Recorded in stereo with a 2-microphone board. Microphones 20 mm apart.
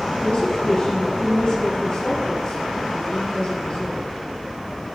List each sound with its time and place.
0.2 s a woman speaking: 45° left (ahead or behind), 3 m